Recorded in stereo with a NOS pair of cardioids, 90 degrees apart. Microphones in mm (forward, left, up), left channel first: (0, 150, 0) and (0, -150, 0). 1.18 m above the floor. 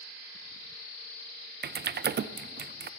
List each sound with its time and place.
1.6 s typing on a keyboard: 35° right, 0.6 m